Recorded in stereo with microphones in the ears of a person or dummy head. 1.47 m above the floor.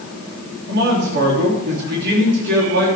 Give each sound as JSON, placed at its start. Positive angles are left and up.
{"t": 0.7, "sound": "a man speaking", "side_deg": -65, "distance_m": 3.5}